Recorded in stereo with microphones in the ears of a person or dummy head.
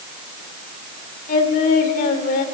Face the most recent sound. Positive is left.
turn(degrees=55)  # may be behind; listen again after turning